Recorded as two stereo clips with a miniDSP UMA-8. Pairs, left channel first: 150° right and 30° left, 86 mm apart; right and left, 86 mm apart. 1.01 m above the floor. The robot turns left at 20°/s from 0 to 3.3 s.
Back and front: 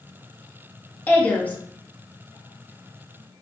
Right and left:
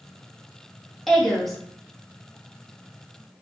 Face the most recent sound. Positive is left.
turn(degrees=145)